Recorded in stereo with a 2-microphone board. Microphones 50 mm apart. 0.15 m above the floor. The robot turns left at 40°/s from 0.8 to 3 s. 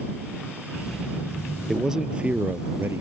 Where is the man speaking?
Straight ahead; by 3.0 s 55° right.